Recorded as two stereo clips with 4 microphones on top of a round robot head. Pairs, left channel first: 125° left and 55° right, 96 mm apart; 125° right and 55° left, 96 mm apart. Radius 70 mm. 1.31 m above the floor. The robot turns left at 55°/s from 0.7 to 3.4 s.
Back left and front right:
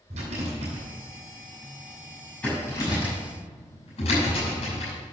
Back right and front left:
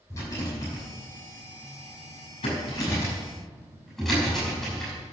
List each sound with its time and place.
0.1 s a rattle: 65° right, 6 m; by 5.1 s 150° left, 6 m